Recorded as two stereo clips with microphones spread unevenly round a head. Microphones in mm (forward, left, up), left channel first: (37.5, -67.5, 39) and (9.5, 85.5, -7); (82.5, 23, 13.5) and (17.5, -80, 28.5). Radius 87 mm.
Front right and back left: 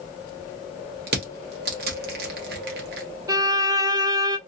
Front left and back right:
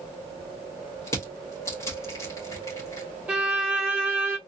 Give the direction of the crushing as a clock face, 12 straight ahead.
8 o'clock.